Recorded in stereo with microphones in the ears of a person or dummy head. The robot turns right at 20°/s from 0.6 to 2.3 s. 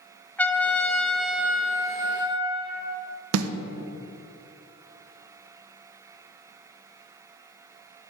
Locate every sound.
0.4 s a trumpet: 170° left, 0.9 m; by 3.0 s 155° right, 0.9 m
3.3 s a snare drum: 85° right, 0.6 m